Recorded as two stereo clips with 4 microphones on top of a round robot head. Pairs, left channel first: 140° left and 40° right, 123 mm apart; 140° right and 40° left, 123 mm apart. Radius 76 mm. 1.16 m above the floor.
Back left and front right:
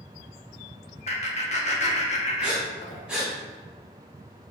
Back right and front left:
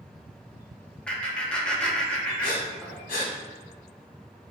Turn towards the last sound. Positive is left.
turn(degrees=-125)